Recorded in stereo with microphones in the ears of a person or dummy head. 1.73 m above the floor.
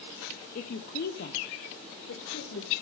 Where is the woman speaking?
45° left (ahead or behind), 0.7 m; by 2.7 s 70° left (ahead or behind), 1.9 m.